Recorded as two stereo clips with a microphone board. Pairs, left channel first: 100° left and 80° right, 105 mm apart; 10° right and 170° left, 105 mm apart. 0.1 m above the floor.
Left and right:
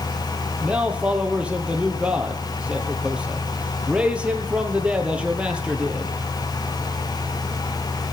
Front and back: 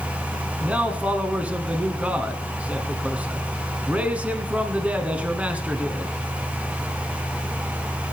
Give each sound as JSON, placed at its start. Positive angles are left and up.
{"t": 0.6, "sound": "a man speaking", "azimuth_deg": -135, "distance_m": 1.3}